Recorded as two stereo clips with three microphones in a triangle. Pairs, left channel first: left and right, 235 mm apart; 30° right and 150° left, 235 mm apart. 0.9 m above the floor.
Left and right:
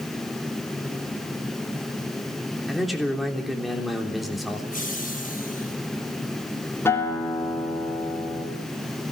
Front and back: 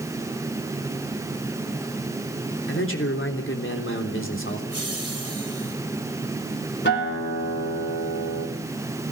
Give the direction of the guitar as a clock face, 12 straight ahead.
12 o'clock.